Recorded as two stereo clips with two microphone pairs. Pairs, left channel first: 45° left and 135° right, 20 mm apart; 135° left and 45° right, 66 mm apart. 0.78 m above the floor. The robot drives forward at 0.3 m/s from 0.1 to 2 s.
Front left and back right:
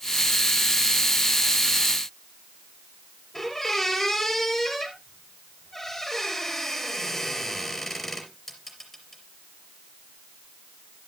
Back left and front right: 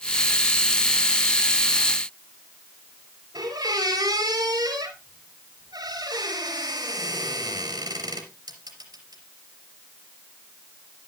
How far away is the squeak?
About 4 m.